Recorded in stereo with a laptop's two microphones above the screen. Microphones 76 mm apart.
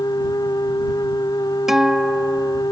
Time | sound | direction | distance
0.0 | a machine running | 60° left (ahead or behind) | ?
1.7 | a guitar | 5° right (ahead or behind) | ?